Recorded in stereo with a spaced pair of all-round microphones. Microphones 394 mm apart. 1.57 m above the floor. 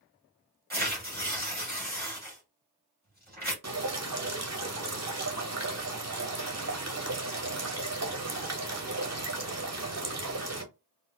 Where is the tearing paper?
25° right (ahead or behind), 2 m.